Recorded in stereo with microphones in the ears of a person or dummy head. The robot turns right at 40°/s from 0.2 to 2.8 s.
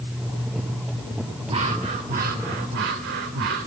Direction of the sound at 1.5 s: 155° right.